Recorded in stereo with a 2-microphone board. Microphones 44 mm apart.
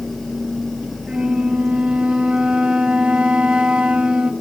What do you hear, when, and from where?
1.1 s a flute: 25° right (ahead or behind), 0.8 m